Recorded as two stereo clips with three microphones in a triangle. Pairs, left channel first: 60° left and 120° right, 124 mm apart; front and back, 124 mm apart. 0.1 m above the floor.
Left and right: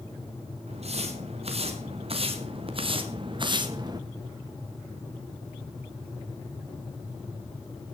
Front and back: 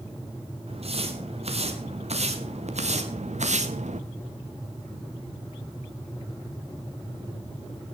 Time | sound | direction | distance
0.7 | footsteps | 150° right | 4 m